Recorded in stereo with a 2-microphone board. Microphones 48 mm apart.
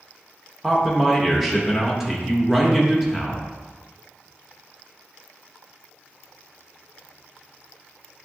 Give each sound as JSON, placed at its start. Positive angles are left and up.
{"t": 0.6, "sound": "a man speaking", "side_deg": -5, "distance_m": 0.8}